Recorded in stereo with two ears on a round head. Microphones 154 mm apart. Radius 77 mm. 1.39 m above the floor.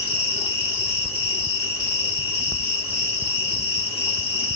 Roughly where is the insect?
Centre.